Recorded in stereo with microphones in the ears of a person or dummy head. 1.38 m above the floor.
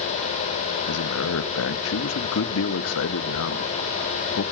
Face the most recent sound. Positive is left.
turn(degrees=75)  # may be behind; listen again after turning